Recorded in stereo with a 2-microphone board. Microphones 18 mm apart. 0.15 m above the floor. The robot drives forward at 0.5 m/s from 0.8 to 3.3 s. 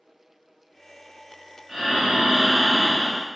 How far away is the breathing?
About 0.9 m.